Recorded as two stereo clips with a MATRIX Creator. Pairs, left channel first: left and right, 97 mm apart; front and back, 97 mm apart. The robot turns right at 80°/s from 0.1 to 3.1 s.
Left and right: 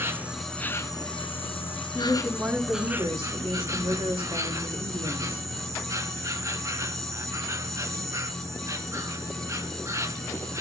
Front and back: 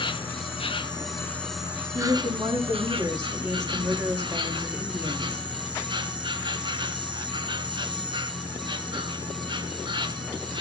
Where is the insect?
25° right, 1.8 m; by 10.6 s 145° right, 1.8 m.